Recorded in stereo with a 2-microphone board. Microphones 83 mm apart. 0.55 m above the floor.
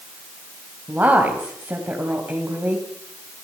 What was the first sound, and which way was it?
A woman speaking, 20° right (ahead or behind).